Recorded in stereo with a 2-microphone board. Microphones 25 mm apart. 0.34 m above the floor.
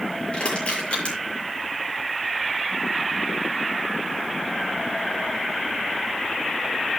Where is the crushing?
50° left (ahead or behind), 7.5 m.